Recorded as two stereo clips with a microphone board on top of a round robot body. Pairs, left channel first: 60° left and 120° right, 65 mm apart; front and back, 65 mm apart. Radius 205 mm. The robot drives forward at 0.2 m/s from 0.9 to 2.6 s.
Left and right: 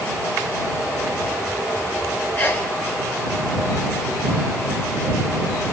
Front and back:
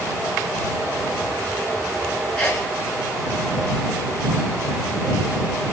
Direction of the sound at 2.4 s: 45° left.